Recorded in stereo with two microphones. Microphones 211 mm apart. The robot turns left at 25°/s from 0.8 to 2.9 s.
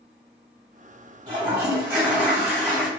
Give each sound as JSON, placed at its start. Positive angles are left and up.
{"t": 1.3, "sound": "a toilet flushing", "azimuth_deg": -150, "distance_m": 1.7}